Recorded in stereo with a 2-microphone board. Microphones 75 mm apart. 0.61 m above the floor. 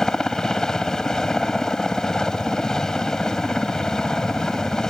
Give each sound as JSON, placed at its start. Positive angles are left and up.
{"t": 0.0, "sound": "a helicopter", "side_deg": 5}